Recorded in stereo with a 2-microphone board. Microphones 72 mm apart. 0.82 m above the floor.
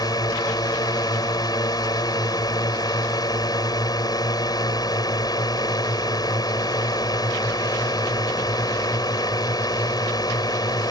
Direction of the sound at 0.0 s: 70° left (ahead or behind).